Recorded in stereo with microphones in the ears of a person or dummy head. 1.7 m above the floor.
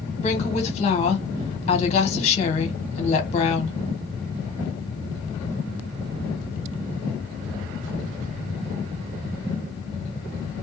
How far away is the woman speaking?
About 1.2 m.